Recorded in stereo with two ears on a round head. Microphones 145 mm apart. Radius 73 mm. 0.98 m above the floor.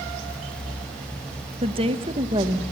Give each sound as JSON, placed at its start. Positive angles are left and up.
{"t": 1.6, "sound": "a woman speaking", "side_deg": -35, "distance_m": 1.0}